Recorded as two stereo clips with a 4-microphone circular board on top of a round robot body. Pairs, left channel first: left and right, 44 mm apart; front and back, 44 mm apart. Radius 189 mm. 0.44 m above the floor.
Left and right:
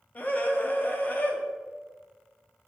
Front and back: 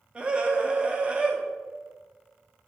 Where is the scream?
125° left, 1.4 m.